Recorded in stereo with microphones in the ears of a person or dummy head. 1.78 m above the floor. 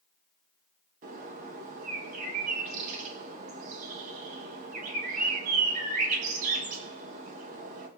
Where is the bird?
50° right (ahead or behind), 1.9 m.